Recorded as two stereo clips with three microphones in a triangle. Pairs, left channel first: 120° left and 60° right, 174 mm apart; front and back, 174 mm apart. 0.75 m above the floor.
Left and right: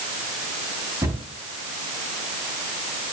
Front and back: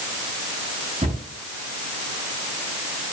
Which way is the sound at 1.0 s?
135° right.